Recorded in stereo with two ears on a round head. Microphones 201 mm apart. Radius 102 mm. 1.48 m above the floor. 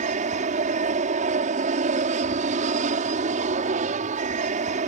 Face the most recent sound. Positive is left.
turn(degrees=-35)  # may be behind; listen again after turning